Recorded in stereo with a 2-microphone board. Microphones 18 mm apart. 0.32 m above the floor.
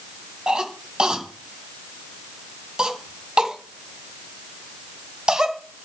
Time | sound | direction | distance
0.5 | a cough | 45° right (ahead or behind) | 2.5 m